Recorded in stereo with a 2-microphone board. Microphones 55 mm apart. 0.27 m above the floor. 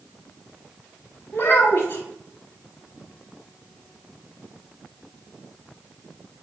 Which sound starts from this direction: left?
A child speaking, at 1.3 s.